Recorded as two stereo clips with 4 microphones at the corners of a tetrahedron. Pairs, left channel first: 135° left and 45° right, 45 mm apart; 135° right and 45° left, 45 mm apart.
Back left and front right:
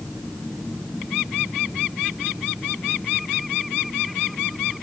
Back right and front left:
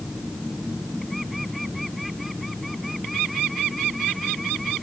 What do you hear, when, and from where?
Only background noise.